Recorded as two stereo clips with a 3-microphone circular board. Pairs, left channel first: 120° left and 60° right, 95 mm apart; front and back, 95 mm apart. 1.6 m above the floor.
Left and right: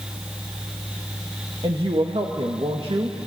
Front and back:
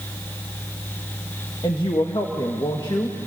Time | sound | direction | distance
1.6 | a woman speaking | 40° right | 1.8 m